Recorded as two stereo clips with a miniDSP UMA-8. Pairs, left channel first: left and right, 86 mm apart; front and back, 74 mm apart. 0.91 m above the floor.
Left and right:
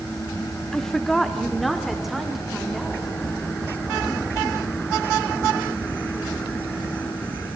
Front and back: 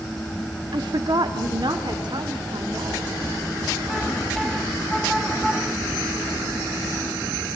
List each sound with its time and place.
0.7 s a woman speaking: 175° left, 1.2 m; by 3.1 s 175° right, 3.5 m